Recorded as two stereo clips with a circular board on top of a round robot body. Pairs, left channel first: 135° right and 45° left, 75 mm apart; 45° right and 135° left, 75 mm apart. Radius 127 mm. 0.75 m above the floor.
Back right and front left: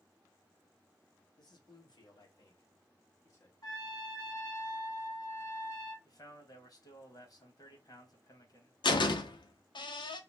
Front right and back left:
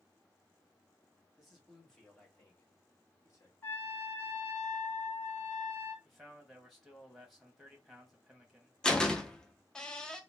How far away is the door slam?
About 0.6 m.